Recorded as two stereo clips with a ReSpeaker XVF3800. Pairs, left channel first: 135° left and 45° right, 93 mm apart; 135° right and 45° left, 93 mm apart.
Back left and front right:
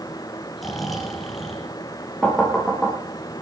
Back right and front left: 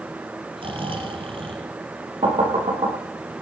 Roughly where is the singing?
I don't hear singing.